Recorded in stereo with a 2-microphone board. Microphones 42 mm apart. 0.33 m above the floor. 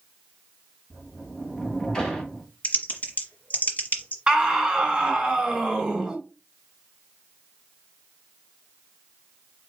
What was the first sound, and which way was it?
A sliding door, 15° left (ahead or behind).